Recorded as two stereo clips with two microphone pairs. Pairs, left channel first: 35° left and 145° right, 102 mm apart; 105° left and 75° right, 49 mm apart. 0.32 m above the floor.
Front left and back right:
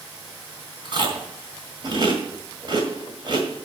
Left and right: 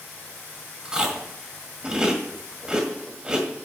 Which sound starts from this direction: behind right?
Chewing, at 0.8 s.